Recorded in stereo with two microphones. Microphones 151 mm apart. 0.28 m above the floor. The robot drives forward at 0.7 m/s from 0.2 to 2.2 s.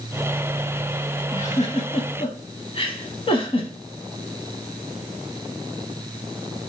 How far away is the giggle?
About 0.8 m.